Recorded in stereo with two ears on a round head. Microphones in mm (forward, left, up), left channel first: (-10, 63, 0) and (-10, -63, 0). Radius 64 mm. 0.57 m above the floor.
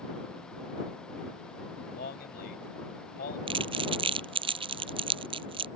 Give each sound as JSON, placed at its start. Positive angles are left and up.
{"t": 1.9, "sound": "a man speaking", "side_deg": 75}
{"t": 3.5, "sound": "crumpling", "side_deg": -35}